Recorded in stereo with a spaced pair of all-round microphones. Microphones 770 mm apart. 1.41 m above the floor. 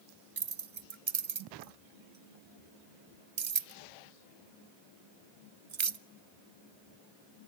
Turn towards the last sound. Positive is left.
turn(degrees=-45)  # may be behind; listen again after turning